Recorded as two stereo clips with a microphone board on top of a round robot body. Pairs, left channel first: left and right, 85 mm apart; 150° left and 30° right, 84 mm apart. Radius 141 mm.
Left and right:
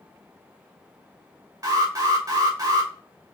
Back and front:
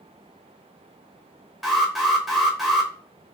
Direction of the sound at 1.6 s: 115° right.